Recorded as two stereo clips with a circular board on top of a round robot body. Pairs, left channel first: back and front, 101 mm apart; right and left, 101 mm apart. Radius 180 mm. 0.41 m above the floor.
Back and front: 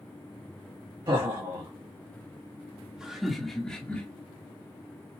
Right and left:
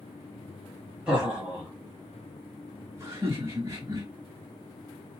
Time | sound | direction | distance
1.1 | laughter | 15° left | 1.8 m